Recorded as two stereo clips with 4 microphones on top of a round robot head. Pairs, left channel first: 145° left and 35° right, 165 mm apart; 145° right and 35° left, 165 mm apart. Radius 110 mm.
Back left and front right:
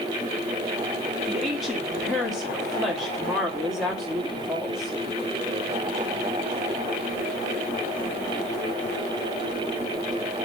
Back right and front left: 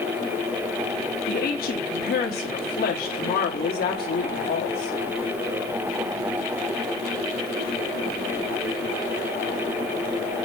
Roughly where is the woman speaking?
Behind right.